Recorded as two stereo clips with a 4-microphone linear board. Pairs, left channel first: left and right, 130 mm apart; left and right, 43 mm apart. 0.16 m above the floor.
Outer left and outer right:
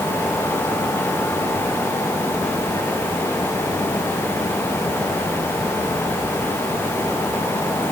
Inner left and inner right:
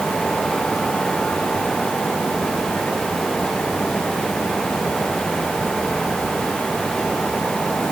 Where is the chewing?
No chewing in this recording.